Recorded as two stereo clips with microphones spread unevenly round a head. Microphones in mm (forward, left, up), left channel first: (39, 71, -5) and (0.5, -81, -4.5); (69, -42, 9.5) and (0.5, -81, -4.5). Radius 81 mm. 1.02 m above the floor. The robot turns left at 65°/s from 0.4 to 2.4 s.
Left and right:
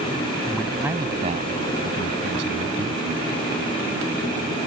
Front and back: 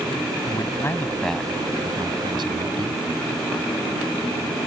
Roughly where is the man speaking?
Ahead.